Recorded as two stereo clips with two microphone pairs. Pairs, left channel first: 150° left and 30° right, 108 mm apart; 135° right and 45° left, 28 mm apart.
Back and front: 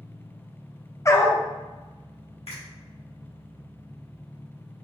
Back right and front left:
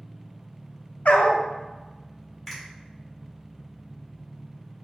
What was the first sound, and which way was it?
An engine running, 120° left.